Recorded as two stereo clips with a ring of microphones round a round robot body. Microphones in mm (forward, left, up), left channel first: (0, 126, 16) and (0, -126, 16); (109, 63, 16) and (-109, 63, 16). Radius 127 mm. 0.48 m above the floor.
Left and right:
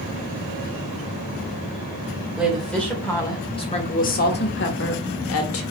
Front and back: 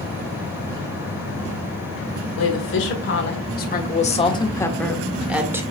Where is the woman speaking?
Straight ahead, 1.9 m; by 5.6 s 105° left, 1.6 m.